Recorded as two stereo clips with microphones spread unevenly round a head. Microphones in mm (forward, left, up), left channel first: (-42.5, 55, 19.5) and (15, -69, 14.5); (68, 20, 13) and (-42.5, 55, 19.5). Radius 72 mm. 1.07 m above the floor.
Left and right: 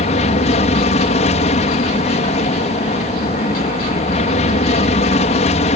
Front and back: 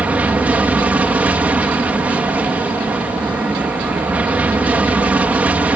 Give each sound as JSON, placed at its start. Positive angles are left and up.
{"t": 0.0, "sound": "an aircraft", "azimuth_deg": 90}